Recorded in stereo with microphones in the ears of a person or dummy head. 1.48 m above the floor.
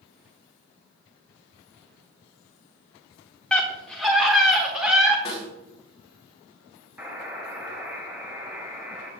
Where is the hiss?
I don't hear a hiss.